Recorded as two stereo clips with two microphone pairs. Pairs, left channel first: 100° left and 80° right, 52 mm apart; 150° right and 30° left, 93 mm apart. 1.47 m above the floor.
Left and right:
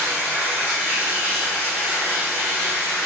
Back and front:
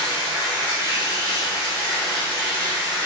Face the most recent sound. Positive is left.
turn(degrees=-20)